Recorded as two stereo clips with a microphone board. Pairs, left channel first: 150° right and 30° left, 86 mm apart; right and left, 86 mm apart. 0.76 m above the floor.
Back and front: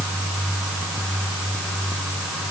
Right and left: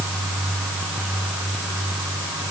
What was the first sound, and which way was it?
Only background noise.